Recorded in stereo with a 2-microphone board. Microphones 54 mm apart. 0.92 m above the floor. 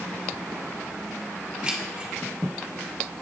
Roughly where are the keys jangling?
Centre.